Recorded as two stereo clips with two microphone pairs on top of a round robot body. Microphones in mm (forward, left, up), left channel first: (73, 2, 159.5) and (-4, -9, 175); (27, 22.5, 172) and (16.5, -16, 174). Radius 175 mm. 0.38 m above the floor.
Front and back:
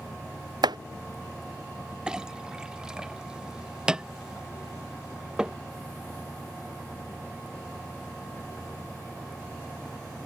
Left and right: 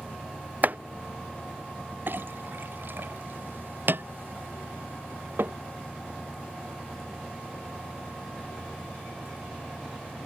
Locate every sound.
0.6 s chopping: 145° right
2.1 s a clink: 85° right